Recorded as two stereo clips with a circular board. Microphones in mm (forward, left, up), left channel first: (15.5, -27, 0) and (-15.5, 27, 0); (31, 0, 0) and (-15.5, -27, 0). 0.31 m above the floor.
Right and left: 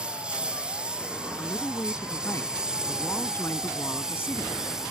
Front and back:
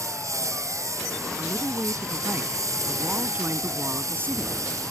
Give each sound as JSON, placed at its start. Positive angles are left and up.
{"t": 0.0, "sound": "a lawn mower", "azimuth_deg": -165}
{"t": 1.4, "sound": "a woman speaking", "azimuth_deg": -105}